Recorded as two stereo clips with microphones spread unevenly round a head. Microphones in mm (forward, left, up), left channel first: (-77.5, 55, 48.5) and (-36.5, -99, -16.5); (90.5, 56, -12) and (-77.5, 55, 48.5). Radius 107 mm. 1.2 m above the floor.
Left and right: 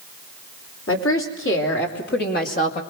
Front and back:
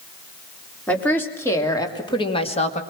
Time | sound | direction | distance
0.9 | a woman speaking | 80° left | 3.5 m